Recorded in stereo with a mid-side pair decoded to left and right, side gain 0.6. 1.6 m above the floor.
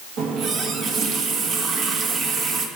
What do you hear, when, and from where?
0.2 s a running tap: 55° right, 1.8 m